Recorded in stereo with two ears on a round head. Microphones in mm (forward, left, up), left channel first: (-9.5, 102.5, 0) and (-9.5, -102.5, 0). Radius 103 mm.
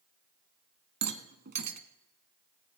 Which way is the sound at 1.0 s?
50° right (ahead or behind).